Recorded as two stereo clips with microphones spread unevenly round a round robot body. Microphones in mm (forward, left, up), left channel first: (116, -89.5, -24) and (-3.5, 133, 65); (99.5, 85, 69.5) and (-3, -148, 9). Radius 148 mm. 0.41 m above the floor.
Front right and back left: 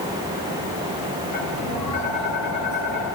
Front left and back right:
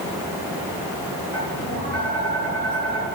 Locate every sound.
1.3 s tapping: 60° right, 7.5 m